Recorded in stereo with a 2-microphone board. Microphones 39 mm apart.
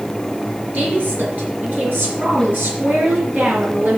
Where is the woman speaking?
50° right (ahead or behind), 4 m; by 4.0 s 70° right (ahead or behind), 4 m.